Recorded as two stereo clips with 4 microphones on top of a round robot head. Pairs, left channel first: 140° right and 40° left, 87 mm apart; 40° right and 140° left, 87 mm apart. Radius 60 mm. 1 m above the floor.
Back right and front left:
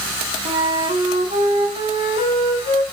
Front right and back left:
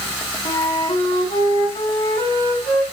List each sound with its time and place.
0.5 s a flute: 5° left, 3 m